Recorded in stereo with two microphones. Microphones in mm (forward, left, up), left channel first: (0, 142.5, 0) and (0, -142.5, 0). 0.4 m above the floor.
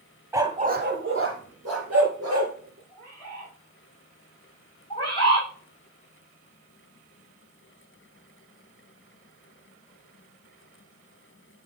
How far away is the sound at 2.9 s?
About 5 m.